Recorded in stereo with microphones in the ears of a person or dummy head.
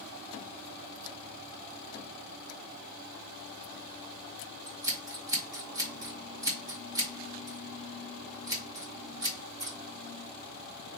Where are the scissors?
25° right (ahead or behind), 1.0 m.